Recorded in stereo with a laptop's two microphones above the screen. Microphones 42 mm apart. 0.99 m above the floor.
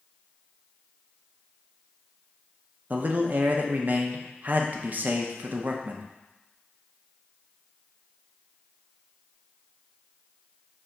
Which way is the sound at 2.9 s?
40° right (ahead or behind).